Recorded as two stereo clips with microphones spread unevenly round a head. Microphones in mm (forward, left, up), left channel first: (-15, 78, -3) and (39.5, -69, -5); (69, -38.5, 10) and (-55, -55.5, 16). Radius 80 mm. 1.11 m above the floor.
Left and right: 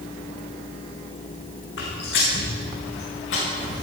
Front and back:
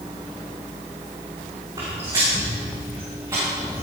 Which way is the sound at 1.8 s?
120° left.